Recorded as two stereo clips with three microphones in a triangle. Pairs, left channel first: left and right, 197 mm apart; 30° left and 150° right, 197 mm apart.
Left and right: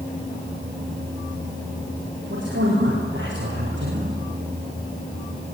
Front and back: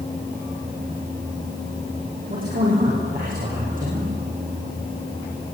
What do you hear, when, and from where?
2.3 s a man speaking: 110° right, 9 m; by 4.2 s 105° right, 8 m